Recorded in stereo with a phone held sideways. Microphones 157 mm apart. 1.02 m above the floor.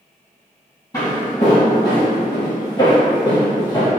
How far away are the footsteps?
About 1.6 m.